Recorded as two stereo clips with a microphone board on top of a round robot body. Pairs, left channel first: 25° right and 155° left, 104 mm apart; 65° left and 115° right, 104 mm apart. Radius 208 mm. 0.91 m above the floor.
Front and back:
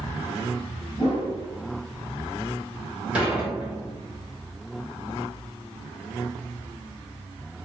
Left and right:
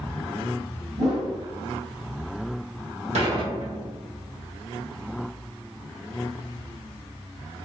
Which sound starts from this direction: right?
A whoosh, at 1.0 s.